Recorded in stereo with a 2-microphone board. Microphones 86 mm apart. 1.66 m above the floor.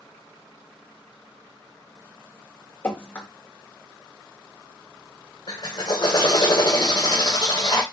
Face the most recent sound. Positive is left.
turn(degrees=45)  # may be behind; listen again after turning